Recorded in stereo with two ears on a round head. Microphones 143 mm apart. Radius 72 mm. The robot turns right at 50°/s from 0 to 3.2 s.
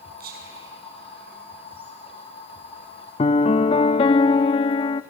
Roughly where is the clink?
No clink in this recording.